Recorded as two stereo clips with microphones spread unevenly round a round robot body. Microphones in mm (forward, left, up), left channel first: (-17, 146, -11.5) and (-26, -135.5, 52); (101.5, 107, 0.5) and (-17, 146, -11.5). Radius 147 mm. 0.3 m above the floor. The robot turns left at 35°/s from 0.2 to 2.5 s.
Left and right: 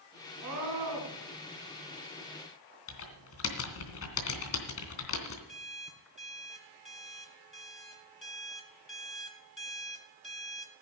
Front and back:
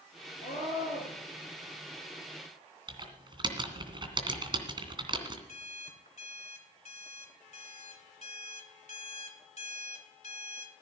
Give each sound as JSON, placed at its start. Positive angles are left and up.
{"t": 0.4, "sound": "a scream", "azimuth_deg": -55, "distance_m": 4.5}
{"t": 2.9, "sound": "typing on a keyboard", "azimuth_deg": 115, "distance_m": 2.5}
{"t": 5.5, "sound": "an alarm clock", "azimuth_deg": 5, "distance_m": 1.8}